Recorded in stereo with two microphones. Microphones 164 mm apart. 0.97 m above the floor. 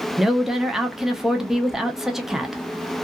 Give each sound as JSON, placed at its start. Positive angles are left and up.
{"t": 0.2, "sound": "a woman speaking", "side_deg": -5, "distance_m": 0.6}